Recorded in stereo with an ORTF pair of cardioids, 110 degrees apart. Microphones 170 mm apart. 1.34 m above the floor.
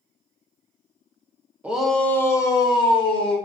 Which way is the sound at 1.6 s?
10° right.